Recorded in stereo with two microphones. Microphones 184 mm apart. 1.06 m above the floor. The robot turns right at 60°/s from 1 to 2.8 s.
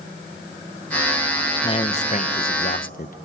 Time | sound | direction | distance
1.6 | a man speaking | 35° left | 0.9 m